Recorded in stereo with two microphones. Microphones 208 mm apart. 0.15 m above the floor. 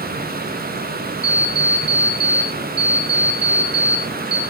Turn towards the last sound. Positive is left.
turn(degrees=-25)  # may be behind; listen again after turning